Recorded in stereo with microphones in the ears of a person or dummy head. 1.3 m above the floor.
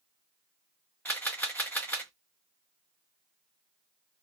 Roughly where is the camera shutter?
Centre.